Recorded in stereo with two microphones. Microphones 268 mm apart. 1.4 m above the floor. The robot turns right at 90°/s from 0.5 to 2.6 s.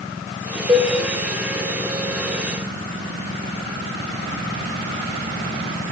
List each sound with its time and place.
0.7 s a cowbell: 15° right (ahead or behind), 1.9 m; by 0.9 s 35° right (ahead or behind), 1.9 m